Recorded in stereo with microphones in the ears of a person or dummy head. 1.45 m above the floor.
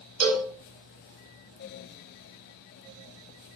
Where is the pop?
I don't hear a pop.